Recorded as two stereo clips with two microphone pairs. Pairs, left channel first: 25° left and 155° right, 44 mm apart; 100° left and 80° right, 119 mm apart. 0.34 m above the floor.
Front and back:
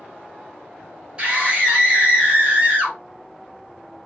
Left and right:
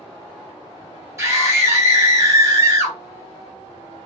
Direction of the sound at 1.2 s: 120° right.